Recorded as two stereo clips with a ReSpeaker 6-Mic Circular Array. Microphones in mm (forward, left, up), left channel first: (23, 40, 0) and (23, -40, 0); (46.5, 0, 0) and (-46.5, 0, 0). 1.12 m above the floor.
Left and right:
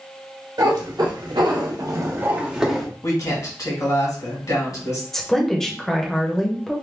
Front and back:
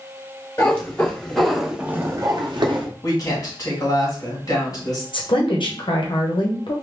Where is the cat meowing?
70° right, 1.4 m; by 2.9 s straight behind, 0.9 m.